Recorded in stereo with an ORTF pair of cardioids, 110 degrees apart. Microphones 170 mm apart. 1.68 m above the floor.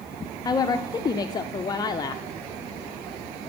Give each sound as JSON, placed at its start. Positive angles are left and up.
{"t": 0.5, "sound": "a woman speaking", "azimuth_deg": 25, "distance_m": 0.6}